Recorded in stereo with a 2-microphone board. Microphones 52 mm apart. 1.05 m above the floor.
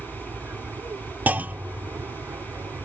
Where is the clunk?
35° right (ahead or behind).